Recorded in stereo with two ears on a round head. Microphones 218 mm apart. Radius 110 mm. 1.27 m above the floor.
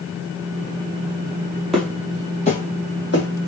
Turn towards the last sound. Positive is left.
turn(degrees=50)  # may be behind; listen again after turning